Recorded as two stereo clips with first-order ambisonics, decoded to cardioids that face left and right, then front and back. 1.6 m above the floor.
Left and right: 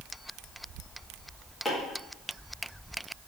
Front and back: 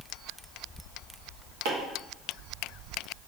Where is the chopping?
170° left, 1.5 m.